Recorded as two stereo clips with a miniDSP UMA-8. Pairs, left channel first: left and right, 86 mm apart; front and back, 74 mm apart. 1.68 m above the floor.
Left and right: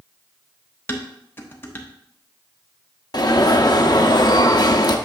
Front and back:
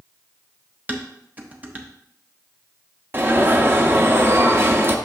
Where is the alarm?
125° left, 0.7 m.